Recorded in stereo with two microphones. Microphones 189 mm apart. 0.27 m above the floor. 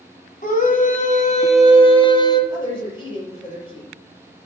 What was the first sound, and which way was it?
A scream, 45° left (ahead or behind).